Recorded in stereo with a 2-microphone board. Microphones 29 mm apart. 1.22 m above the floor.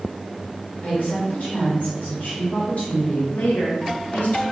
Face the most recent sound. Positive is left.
turn(degrees=75)  # may be behind; listen again after turning